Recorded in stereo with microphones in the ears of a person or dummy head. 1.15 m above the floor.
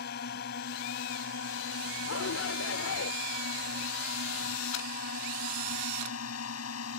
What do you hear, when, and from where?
0.0 s a drone: 55° left (ahead or behind); by 7.0 s 80° left
2.1 s a shout: 75° left (ahead or behind)